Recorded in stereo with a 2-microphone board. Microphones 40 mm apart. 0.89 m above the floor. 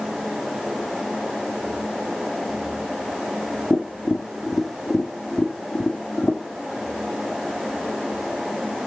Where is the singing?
No singing in this recording.